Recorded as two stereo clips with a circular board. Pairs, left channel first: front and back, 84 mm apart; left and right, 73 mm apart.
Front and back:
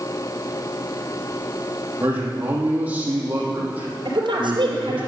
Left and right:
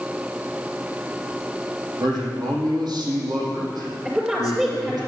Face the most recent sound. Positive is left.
turn(degrees=-165)